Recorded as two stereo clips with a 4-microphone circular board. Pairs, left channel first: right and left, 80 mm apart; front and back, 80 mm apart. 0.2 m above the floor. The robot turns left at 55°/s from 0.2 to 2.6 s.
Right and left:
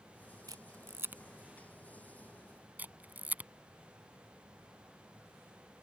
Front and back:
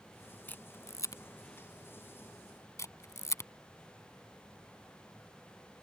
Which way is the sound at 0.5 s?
65° left.